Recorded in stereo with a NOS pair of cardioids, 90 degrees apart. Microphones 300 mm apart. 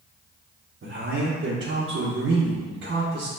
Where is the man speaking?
40° right, 1.2 m.